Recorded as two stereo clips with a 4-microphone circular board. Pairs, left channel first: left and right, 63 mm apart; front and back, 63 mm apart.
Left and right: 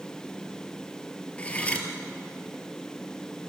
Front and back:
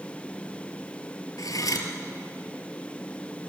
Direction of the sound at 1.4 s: 20° left.